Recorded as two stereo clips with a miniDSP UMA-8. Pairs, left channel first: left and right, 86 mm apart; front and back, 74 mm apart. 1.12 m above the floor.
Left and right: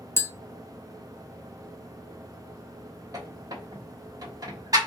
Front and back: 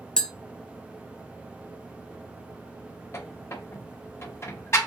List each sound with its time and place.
0.2 s tapping: 70° left, 0.6 m
3.1 s a squeak: 50° right, 1.2 m